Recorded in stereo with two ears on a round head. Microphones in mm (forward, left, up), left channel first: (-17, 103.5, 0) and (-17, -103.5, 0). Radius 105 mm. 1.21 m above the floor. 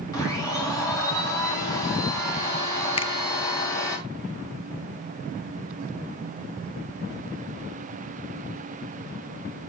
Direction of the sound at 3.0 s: 25° left (ahead or behind).